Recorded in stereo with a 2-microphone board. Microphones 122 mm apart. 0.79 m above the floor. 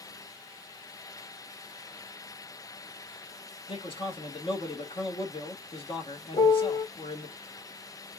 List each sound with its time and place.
3.7 s a man speaking: 45° left (ahead or behind), 1.5 m
6.3 s a piano: 65° left (ahead or behind), 1.2 m